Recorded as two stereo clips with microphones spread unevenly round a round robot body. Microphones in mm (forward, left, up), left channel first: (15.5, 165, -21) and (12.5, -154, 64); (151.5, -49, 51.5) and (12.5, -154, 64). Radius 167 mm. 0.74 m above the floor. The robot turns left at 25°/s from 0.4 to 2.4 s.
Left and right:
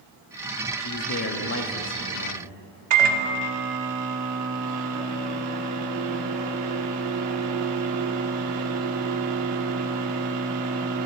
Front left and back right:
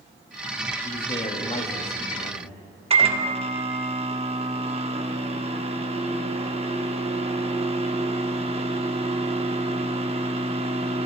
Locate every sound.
0.8 s a man speaking: 95° left, 1.5 m; by 2.6 s 55° left, 1.5 m
2.9 s a microwave: 85° right, 1.3 m